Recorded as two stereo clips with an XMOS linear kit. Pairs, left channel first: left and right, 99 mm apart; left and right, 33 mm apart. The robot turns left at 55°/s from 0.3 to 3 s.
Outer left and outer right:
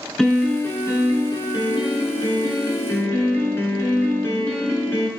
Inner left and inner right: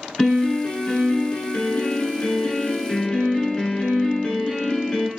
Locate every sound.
0.2 s a piano: 175° left, 1.6 m; by 5.1 s 25° left, 1.6 m